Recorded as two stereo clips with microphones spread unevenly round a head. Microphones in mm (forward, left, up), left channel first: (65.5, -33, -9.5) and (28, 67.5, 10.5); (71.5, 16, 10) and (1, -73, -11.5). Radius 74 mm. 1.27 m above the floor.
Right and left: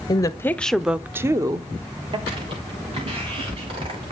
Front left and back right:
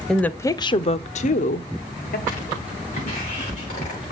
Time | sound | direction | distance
0.1 | a woman speaking | 40° right | 0.6 m
2.3 | footsteps | 80° left | 6 m